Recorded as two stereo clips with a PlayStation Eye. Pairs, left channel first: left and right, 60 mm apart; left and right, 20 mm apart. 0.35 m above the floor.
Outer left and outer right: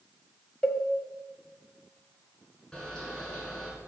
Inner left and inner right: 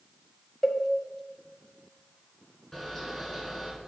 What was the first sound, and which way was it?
A cowbell, 20° left (ahead or behind).